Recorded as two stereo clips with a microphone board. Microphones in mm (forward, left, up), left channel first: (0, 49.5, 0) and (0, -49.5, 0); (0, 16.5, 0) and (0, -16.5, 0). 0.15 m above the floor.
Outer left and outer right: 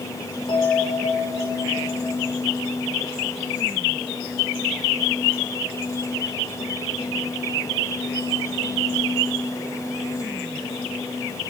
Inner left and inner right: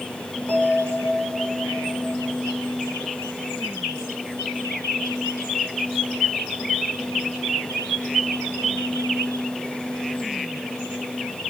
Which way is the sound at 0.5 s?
55° left (ahead or behind).